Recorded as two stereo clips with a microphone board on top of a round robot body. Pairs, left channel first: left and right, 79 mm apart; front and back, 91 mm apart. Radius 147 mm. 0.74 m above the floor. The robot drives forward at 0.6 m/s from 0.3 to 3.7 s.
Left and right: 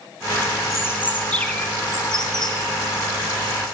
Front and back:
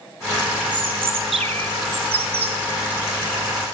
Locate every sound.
0.7 s a bird: 145° left, 0.6 m; by 2.6 s 175° left, 1.4 m